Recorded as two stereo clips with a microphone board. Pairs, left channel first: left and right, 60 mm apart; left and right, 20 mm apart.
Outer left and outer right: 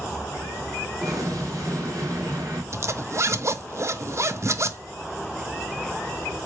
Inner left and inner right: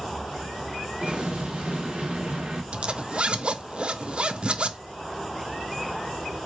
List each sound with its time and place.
1.0 s an explosion: 65° right (ahead or behind), 2.5 m
2.7 s a zipper: 50° right (ahead or behind), 0.6 m